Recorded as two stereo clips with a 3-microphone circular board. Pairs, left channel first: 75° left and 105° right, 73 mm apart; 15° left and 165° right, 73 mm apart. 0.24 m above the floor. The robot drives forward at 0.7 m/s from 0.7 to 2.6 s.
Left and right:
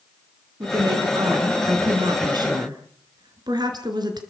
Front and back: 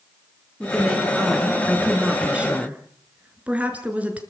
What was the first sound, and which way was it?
A woman speaking, 70° right.